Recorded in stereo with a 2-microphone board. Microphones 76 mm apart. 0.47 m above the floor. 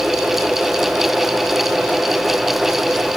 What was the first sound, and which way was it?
Only background noise.